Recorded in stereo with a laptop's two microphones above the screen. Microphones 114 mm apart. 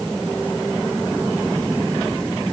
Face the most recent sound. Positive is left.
No sound to turn to.